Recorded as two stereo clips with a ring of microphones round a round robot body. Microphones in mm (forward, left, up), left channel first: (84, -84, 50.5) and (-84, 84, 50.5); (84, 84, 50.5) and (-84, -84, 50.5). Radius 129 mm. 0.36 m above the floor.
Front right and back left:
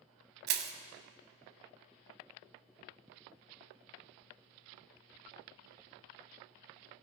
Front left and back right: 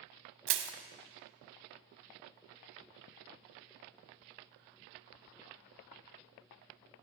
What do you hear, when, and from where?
0.5 s crushing: 175° right, 0.9 m